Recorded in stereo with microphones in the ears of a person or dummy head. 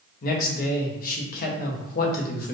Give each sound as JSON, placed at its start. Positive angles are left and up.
{"t": 0.2, "sound": "a man speaking", "side_deg": 50, "distance_m": 1.0}